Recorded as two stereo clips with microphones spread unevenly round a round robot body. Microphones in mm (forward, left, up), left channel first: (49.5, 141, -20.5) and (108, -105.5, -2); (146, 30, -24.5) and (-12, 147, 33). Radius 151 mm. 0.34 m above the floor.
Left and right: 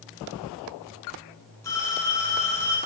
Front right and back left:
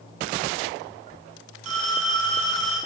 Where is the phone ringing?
175° right, 2.5 m.